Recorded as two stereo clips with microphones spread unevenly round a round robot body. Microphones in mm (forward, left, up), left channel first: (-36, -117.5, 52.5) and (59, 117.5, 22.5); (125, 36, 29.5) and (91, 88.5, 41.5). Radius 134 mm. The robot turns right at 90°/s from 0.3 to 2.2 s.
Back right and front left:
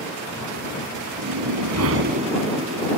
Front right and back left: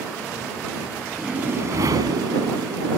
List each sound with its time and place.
1.2 s a whoosh: 45° left; by 3.0 s 135° left